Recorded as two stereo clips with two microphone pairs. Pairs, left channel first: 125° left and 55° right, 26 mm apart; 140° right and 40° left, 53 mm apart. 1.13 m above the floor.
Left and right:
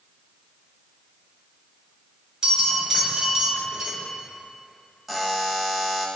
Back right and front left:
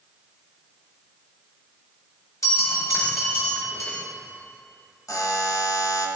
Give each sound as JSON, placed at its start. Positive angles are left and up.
{"t": 2.4, "sound": "a bell", "azimuth_deg": -120, "distance_m": 2.0}
{"t": 5.1, "sound": "a buzzer", "azimuth_deg": -140, "distance_m": 0.6}